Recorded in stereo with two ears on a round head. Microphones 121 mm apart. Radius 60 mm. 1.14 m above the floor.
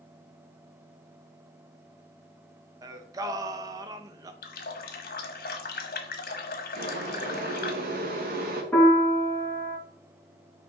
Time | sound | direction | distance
2.8 | singing | 25° right (ahead or behind) | 0.6 m
4.4 | a running tap | 75° left (ahead or behind) | 1.2 m
6.8 | boiling | 70° right (ahead or behind) | 1.7 m
8.7 | a piano | 10° left (ahead or behind) | 2.5 m